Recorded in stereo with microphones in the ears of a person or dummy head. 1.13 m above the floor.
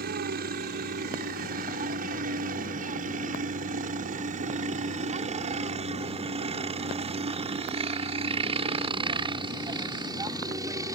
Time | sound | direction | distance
0.0 | a helicopter | 50° right (ahead or behind) | ?